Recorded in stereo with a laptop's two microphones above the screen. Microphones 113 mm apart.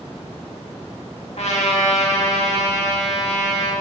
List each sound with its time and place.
1.4 s a trumpet: 75° left (ahead or behind), 2.0 m